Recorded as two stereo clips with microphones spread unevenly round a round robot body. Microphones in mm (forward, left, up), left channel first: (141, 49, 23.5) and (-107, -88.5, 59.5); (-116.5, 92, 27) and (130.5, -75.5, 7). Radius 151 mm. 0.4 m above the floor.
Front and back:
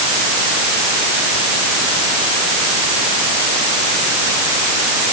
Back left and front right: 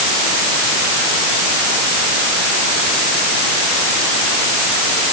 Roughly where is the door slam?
No door slam in this recording.